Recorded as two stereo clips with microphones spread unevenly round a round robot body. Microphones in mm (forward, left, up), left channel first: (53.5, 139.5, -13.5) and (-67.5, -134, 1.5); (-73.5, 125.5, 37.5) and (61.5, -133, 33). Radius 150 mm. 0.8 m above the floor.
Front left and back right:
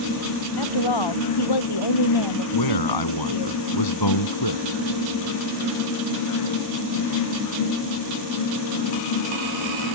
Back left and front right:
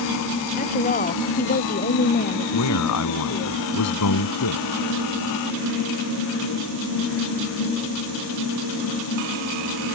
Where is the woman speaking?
50° left; by 3.5 s 60° left.